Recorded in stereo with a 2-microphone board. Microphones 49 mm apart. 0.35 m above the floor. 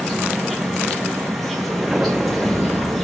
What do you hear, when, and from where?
0.0 s an insect: centre (ahead or behind), 1.7 m
1.7 s an explosion: 10° right (ahead or behind), 0.7 m